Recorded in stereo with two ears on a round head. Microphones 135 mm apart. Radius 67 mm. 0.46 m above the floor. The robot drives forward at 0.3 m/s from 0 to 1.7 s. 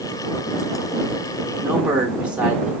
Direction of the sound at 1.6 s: 10° right (ahead or behind).